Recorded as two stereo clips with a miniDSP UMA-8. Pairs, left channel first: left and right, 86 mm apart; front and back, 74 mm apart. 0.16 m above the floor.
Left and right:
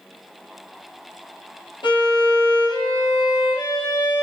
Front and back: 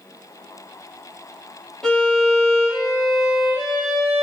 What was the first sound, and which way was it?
A violin, 80° left.